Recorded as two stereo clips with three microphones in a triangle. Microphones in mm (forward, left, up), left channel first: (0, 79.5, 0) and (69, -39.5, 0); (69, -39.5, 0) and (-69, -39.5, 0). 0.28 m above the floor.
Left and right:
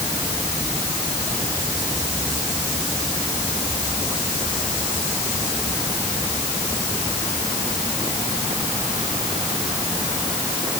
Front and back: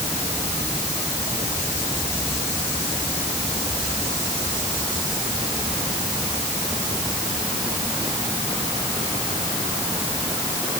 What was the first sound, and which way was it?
Only background noise.